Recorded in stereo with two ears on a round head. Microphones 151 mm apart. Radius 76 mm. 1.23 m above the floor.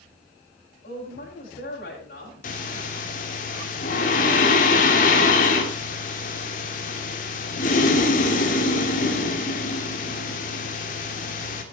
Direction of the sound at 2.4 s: 45° left (ahead or behind).